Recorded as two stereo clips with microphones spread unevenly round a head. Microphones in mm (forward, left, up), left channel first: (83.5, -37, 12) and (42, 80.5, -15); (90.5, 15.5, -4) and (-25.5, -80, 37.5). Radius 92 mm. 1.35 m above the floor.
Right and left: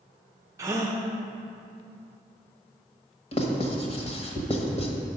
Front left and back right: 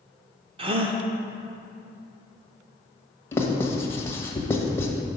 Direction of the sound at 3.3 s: 40° right.